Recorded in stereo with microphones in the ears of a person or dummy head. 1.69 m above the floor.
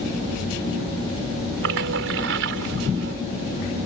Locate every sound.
1.6 s a splash: 75° right (ahead or behind)